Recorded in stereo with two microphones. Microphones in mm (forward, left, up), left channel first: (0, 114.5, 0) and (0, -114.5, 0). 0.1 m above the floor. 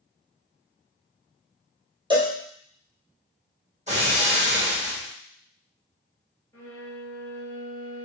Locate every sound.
2.1 s a cowbell: 20° right (ahead or behind), 1.3 m
3.9 s breaking glass: 30° right (ahead or behind), 1.7 m
6.5 s a violin: 10° left (ahead or behind), 1.3 m